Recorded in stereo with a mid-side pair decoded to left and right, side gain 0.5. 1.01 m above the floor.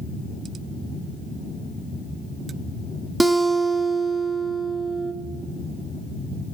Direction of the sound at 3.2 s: 20° right.